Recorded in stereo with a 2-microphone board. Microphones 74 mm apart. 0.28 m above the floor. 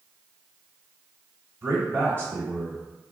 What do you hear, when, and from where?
1.6 s a man speaking: 25° right (ahead or behind), 1.2 m